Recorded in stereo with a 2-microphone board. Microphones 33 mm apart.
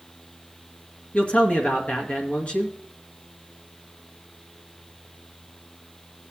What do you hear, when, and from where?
1.1 s a man speaking: 50° left (ahead or behind), 2 m